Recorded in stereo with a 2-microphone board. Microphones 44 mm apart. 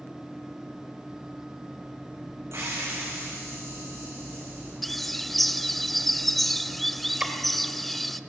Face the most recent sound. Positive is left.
turn(degrees=-15)  # may be behind; listen again after turning